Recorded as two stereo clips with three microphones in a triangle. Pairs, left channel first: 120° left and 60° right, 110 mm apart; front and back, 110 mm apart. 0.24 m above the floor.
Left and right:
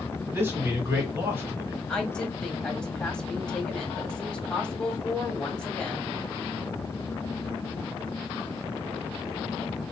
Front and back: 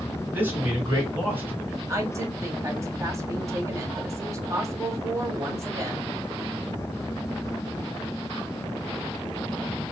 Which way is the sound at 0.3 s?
120° right.